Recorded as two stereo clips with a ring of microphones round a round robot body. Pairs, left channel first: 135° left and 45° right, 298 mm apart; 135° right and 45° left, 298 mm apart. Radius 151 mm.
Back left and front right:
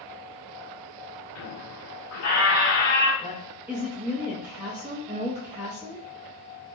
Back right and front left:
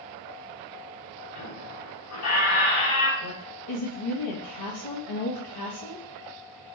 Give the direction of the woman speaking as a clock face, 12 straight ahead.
4 o'clock.